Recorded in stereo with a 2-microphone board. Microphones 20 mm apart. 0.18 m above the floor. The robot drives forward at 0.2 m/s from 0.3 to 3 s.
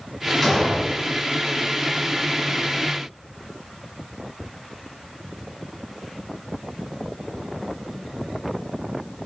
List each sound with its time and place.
0.4 s an explosion: 15° left (ahead or behind), 1.5 m